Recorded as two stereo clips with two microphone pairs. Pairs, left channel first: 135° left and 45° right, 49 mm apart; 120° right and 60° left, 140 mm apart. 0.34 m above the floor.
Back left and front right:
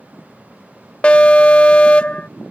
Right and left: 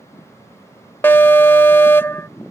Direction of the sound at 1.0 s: 170° left.